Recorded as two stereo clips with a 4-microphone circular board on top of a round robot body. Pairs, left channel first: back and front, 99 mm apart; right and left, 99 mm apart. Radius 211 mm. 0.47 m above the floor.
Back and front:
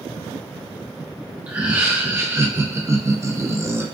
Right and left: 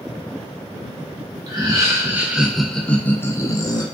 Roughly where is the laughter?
Left.